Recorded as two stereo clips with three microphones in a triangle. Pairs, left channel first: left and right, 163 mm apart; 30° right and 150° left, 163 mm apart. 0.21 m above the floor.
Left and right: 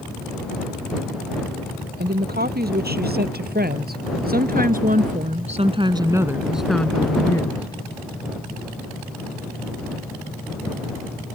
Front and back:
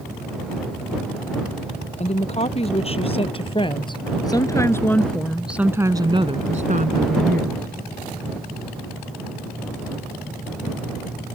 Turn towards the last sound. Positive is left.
turn(degrees=150)